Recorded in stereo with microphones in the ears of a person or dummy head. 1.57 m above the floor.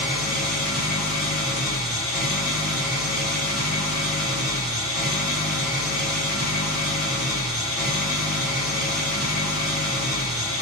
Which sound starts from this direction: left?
An engine running, at 0.0 s.